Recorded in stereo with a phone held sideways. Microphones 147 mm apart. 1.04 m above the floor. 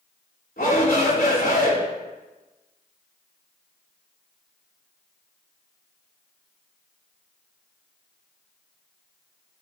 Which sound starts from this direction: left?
A shout, at 0.6 s.